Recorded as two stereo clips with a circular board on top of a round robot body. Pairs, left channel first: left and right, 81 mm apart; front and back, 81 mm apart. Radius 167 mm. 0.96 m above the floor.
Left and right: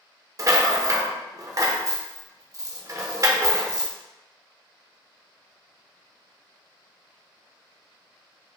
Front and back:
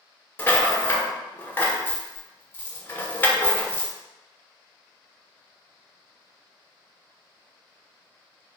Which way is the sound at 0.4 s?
60° right.